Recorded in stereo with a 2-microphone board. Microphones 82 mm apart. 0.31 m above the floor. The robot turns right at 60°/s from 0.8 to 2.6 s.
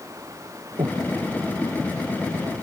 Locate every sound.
0.8 s breathing: 60° right (ahead or behind); by 1.1 s 80° right